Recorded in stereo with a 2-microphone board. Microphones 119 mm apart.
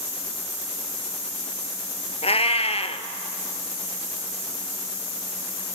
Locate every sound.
2.2 s a cat meowing: 60° left (ahead or behind), 1.1 m